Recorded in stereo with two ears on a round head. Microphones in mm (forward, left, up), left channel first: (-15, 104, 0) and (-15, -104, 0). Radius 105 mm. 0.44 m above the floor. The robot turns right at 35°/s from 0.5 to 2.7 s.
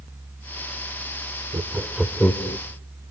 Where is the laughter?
15° right (ahead or behind), 1.0 m; by 2.6 s 15° left (ahead or behind), 1.0 m.